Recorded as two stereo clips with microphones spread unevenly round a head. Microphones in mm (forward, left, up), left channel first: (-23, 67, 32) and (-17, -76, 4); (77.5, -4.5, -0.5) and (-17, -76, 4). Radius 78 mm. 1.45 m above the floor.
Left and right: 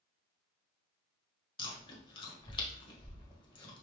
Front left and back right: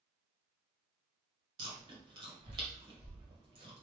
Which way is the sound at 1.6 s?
155° left.